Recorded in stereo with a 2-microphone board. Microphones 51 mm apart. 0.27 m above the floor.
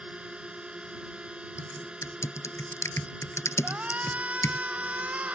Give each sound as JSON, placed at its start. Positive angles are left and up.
{"t": 0.0, "sound": "a drone", "side_deg": -20}
{"t": 1.6, "sound": "typing on a keyboard", "side_deg": 70}
{"t": 3.6, "sound": "a shout", "side_deg": -30}